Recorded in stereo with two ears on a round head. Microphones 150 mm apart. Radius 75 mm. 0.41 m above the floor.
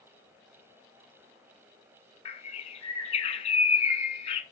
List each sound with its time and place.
2.2 s a bird: 35° left (ahead or behind), 1.5 m